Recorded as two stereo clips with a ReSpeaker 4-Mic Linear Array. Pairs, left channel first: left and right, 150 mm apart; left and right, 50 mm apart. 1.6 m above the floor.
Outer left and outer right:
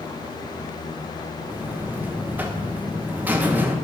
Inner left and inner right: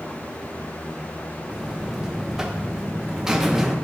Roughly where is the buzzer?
Centre.